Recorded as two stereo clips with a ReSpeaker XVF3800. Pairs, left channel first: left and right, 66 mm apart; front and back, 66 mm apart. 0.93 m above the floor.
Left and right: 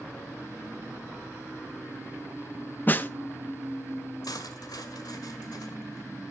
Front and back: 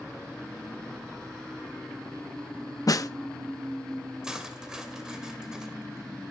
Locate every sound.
2.9 s a snare drum: 30° left, 0.6 m
4.2 s cutlery clinking: 100° left, 1.9 m